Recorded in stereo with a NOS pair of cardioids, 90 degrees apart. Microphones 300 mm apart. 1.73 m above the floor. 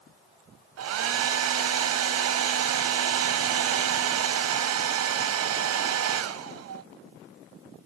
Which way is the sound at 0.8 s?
55° right.